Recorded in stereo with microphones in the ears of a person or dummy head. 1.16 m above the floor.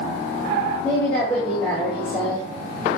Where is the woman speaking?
10° left (ahead or behind), 2.5 m.